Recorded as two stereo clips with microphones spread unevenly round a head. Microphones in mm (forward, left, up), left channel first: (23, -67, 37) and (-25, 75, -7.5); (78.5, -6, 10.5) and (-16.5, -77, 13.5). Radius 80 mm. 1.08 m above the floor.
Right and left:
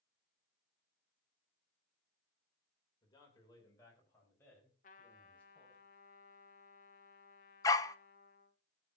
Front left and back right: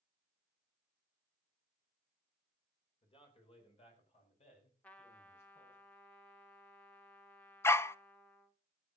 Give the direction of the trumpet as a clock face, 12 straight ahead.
1 o'clock.